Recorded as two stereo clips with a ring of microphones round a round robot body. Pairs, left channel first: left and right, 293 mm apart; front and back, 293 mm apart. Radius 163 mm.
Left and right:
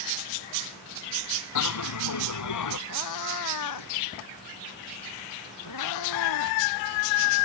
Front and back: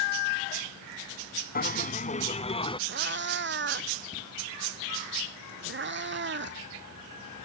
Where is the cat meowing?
130° left.